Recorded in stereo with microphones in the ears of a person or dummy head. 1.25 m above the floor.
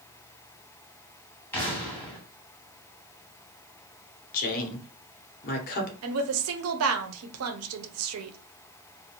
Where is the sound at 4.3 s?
45° left (ahead or behind), 0.9 m.